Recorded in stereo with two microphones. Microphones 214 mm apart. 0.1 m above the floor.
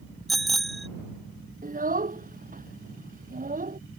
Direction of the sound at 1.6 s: 40° right (ahead or behind).